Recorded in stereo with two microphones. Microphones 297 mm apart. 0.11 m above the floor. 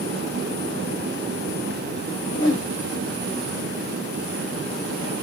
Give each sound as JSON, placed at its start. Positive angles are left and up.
{"t": 2.3, "sound": "a whoosh", "side_deg": 35, "distance_m": 1.4}